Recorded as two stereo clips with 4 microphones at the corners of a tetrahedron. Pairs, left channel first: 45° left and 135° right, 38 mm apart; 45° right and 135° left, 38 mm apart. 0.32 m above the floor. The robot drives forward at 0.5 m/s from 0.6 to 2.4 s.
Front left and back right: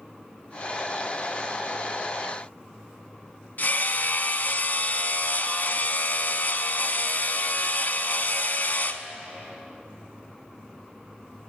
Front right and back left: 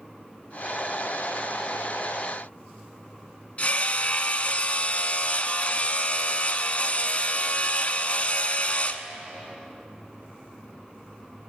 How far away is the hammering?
About 0.7 m.